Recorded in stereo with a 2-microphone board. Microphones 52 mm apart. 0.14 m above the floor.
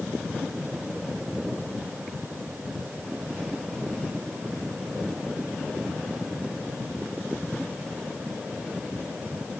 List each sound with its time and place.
Only background noise.